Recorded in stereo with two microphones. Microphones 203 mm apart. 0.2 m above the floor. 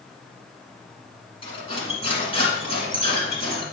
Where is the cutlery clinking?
25° left (ahead or behind), 1.6 m.